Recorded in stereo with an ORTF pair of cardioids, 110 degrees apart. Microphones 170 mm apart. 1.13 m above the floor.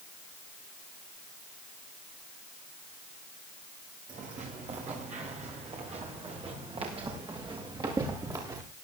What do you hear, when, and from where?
4.1 s footsteps: 45° right, 8.5 m; by 8.6 s 20° right, 7 m